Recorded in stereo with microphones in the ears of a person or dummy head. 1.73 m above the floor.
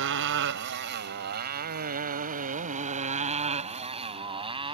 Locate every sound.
0.0 s a motorcycle: 60° right (ahead or behind); by 4.7 s 25° right (ahead or behind)